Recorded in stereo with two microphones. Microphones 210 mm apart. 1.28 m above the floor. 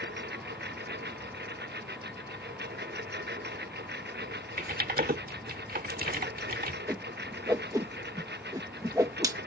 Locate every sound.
0.0 s a lawn mower: 55° right (ahead or behind)
4.6 s typing on a keyboard: 45° right (ahead or behind)
6.9 s a whoosh: 15° right (ahead or behind)